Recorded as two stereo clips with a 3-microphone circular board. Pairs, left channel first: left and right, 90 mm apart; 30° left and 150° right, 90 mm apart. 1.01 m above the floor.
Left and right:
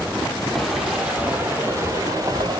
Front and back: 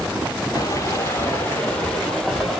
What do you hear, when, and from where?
0.6 s footsteps: straight ahead, 1.3 m; by 2.6 s 65° right, 1.7 m